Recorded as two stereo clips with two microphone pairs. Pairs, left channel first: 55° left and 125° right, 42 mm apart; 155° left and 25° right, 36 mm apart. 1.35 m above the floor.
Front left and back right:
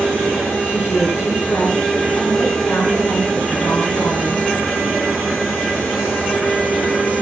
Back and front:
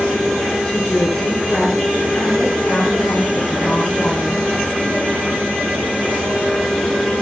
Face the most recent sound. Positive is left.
turn(degrees=75)